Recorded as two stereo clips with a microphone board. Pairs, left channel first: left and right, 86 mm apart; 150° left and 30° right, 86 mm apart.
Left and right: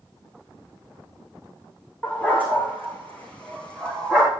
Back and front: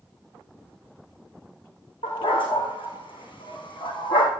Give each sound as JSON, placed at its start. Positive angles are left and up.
{"t": 2.0, "sound": "a dog barking", "azimuth_deg": 160, "distance_m": 6.5}